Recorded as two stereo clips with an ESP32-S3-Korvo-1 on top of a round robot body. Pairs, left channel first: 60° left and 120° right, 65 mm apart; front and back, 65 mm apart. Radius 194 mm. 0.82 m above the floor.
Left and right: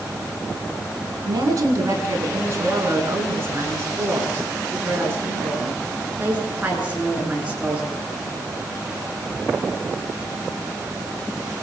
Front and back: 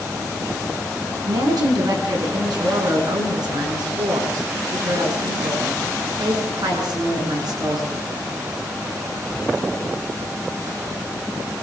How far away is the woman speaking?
About 9 m.